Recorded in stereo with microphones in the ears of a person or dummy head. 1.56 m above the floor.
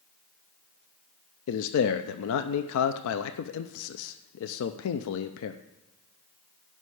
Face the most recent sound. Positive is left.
turn(degrees=80)